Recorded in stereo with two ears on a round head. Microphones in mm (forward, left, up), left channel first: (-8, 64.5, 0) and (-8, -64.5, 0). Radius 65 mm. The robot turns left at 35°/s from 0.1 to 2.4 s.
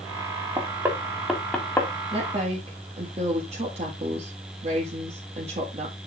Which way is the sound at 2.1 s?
35° right (ahead or behind).